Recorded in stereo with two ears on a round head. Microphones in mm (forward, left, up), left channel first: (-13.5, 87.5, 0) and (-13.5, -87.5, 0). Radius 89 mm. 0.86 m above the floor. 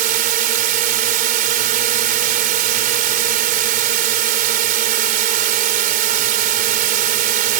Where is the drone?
40° right (ahead or behind).